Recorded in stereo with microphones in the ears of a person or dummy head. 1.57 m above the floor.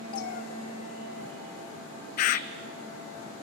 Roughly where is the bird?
Left.